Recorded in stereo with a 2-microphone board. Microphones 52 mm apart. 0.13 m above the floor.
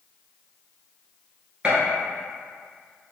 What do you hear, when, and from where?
1.6 s a gunshot: 25° right (ahead or behind), 1.6 m